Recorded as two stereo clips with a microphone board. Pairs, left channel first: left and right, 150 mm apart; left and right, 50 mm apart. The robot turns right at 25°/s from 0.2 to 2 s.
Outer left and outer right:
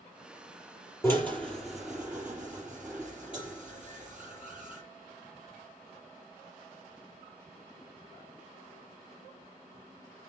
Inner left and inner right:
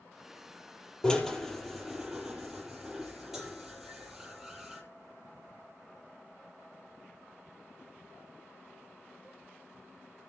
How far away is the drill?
About 4.5 m.